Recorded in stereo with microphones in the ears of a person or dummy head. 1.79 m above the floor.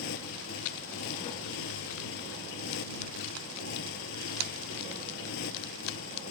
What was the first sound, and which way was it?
A motorcycle, 80° left.